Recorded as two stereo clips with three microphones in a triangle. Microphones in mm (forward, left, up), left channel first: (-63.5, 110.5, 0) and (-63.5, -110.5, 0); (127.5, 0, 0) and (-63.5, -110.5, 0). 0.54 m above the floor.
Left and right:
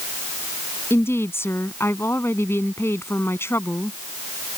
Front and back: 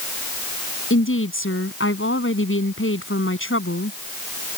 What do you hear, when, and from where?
0.9 s a woman speaking: 10° left